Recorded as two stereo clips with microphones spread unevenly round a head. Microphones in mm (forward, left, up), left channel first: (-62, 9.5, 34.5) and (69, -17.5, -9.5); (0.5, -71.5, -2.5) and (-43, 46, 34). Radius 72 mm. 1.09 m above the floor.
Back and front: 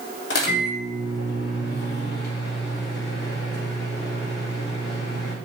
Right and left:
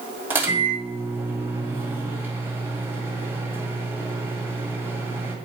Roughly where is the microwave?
Behind.